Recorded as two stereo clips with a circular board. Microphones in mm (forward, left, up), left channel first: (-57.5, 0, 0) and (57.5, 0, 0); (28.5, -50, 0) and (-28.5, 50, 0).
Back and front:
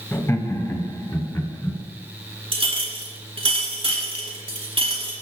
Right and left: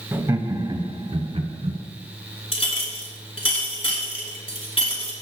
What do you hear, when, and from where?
0.1 s laughter: 150° left, 1.0 m; by 1.8 s 125° left, 2 m
2.5 s a clink: 35° right, 2.5 m